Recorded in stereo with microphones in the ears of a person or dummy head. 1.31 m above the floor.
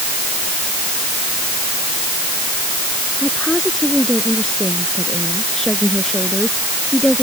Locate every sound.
3.2 s a woman speaking: centre (ahead or behind)